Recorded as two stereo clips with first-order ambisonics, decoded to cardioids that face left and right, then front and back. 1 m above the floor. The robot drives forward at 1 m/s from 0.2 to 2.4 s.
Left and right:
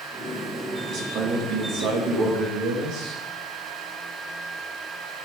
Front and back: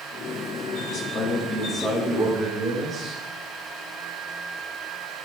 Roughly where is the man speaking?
Ahead right.